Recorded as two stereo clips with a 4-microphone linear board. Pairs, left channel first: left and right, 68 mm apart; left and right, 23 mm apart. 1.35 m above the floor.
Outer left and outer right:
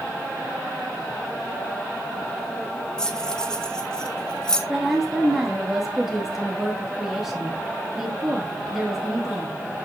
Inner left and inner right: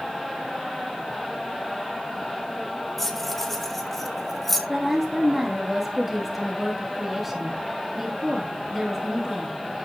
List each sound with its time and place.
3.0 s keys jangling: 10° left (ahead or behind), 1.5 m
4.7 s a woman speaking: 5° right (ahead or behind), 2.5 m